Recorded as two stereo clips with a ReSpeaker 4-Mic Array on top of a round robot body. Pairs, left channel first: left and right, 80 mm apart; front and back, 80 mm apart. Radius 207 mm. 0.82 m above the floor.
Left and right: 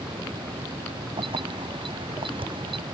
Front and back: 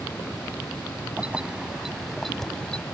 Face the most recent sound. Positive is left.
turn(degrees=-80)